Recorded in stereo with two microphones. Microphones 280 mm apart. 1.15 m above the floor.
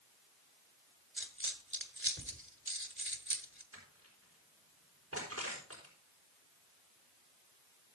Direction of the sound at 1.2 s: 45° right (ahead or behind).